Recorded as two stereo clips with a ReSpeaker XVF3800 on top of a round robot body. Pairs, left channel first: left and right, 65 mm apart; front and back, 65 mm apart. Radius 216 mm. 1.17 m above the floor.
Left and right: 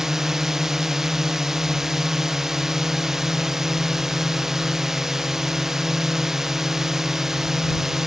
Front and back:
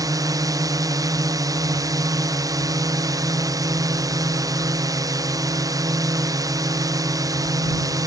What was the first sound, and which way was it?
A drone, 170° right.